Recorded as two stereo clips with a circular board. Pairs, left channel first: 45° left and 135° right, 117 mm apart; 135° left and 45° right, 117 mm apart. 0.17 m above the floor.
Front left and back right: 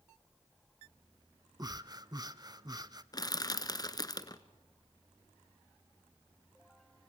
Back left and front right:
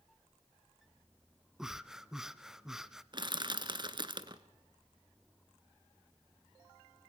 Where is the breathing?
130° right, 0.7 m.